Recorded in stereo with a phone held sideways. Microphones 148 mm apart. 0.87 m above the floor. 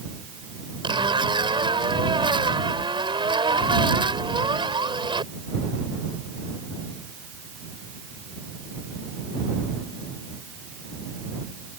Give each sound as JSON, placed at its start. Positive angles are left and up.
{"t": 0.8, "sound": "a zipper", "side_deg": -35}